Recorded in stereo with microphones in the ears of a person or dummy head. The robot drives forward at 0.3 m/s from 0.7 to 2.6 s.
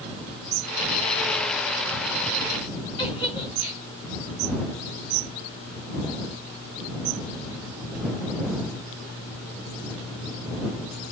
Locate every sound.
3.0 s a giggle: 25° left (ahead or behind), 1.8 m